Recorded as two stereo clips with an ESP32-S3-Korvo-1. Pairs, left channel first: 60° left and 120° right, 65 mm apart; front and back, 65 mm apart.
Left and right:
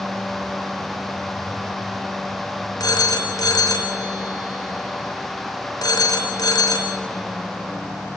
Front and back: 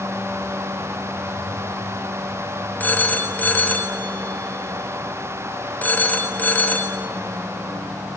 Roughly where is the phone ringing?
Ahead left.